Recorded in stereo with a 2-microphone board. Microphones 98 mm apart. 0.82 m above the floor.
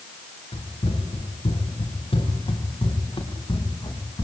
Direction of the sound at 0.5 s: 85° left.